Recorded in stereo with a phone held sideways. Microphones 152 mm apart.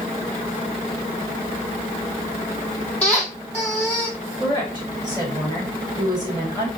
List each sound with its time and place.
3.0 s a squeak: 5° left (ahead or behind), 2.0 m
4.4 s a woman speaking: 30° right (ahead or behind), 2.5 m